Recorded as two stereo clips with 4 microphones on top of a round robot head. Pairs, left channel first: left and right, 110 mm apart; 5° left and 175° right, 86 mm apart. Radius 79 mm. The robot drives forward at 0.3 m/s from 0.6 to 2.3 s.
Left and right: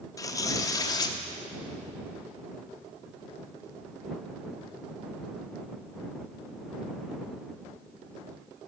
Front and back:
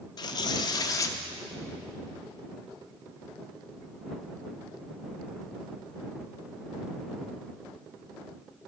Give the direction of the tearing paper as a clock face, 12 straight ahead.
11 o'clock.